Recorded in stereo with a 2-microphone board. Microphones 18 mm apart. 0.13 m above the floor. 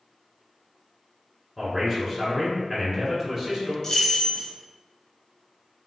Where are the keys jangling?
30° left (ahead or behind), 0.8 m.